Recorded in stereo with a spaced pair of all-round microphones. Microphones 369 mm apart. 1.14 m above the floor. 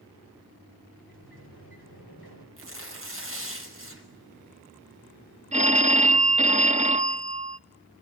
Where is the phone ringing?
20° right (ahead or behind), 0.8 m.